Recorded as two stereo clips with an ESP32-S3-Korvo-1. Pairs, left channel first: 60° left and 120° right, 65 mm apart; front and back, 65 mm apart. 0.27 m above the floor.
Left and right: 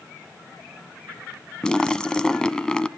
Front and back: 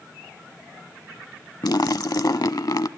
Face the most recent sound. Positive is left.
turn(degrees=-20)